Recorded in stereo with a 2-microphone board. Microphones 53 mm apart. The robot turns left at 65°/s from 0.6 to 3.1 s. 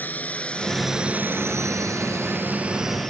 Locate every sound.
0.0 s a drone: 35° left (ahead or behind); by 3.1 s 10° left (ahead or behind)